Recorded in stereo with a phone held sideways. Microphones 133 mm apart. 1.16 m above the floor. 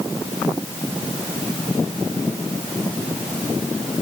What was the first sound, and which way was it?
Only background noise.